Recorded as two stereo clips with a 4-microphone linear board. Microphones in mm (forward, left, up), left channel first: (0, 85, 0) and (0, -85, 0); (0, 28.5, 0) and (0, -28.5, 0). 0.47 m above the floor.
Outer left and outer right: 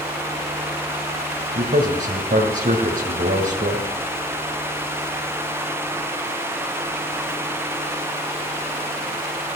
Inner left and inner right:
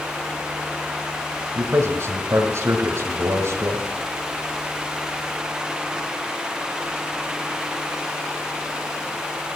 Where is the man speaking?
70° right (ahead or behind), 2 m.